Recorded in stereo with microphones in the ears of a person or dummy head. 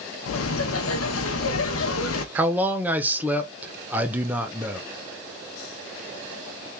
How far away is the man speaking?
About 0.7 m.